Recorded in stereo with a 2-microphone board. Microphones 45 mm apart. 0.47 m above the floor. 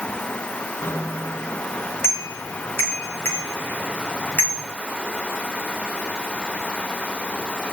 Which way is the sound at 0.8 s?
65° left (ahead or behind).